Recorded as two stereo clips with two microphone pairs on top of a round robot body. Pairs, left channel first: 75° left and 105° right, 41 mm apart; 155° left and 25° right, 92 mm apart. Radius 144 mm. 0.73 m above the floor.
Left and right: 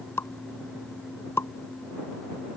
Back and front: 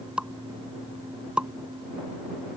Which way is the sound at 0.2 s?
55° left.